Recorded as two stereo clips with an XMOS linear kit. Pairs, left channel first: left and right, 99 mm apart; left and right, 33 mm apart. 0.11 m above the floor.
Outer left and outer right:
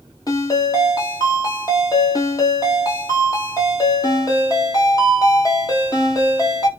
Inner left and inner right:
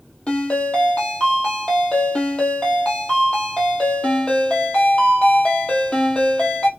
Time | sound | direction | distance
0.3 | a ringtone | 35° left (ahead or behind) | 1.5 m